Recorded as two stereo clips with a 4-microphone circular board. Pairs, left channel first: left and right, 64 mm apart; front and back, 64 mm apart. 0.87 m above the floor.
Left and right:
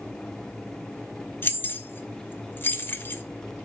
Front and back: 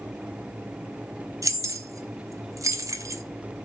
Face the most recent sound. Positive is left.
turn(degrees=150)